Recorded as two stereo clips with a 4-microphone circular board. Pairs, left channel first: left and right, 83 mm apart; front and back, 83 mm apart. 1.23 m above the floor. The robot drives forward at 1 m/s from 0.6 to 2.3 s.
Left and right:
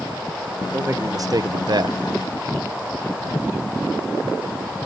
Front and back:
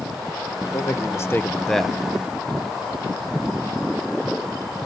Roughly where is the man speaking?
Ahead right.